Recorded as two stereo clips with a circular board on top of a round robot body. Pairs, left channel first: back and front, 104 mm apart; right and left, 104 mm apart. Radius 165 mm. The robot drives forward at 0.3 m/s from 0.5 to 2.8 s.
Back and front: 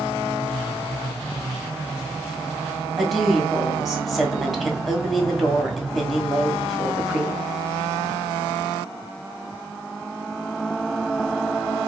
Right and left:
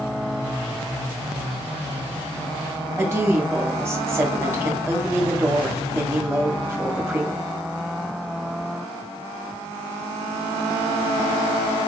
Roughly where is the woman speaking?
Left.